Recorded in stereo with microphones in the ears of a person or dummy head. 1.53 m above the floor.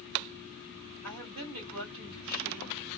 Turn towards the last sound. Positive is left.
turn(degrees=-85)